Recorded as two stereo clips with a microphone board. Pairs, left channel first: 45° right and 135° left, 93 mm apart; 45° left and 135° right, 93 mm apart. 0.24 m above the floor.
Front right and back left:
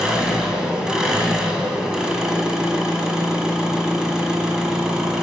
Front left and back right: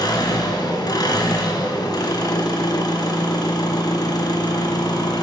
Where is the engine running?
55° left, 1.7 m.